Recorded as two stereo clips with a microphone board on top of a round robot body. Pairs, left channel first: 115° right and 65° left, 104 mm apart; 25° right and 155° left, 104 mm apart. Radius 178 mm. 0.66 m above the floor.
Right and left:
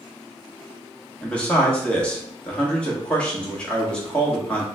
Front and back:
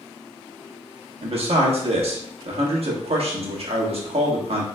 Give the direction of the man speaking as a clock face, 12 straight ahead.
6 o'clock.